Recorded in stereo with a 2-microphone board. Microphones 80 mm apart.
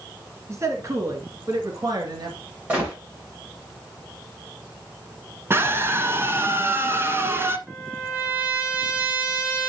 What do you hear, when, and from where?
0.5 s a man speaking: 35° right (ahead or behind), 2 m; by 2.4 s 60° right (ahead or behind), 3 m
2.7 s a gunshot: 20° right (ahead or behind), 7 m
5.5 s a scream: 30° right (ahead or behind), 1.3 m
7.7 s a trumpet: 15° right (ahead or behind), 4 m